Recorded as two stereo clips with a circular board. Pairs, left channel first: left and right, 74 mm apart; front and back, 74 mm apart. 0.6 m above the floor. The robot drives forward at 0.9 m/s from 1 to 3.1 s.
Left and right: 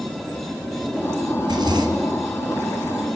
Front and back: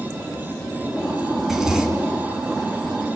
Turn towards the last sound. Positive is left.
turn(degrees=-120)